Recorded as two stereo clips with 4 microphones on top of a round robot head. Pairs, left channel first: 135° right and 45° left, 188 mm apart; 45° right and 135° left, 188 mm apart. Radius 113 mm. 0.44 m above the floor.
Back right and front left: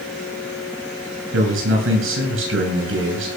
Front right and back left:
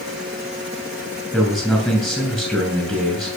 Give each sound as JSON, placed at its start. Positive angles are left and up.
{"t": 1.3, "sound": "a man speaking", "azimuth_deg": 45, "distance_m": 8.0}